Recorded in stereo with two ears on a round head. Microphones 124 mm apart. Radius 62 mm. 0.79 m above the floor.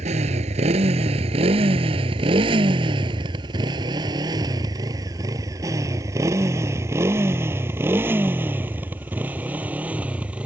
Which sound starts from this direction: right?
A motorcycle, at 0.0 s.